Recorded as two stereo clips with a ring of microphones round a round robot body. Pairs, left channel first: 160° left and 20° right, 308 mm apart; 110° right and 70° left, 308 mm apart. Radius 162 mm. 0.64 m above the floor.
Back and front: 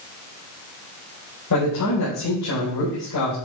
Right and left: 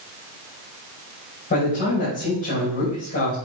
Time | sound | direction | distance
1.5 | a man speaking | 175° right | 3.5 m